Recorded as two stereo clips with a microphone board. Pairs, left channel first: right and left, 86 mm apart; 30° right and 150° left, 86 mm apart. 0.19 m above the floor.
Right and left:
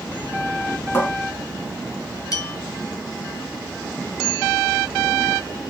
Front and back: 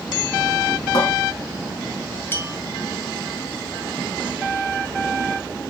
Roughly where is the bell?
Right.